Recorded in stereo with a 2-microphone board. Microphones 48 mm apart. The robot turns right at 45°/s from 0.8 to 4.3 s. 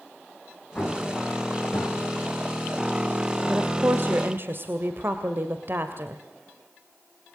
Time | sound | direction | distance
0.8 | an explosion | 30° left (ahead or behind) | 5 m
3.5 | a woman speaking | 120° right | 1.9 m